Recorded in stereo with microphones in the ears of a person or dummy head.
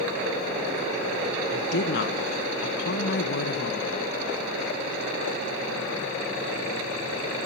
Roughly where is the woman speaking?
Left.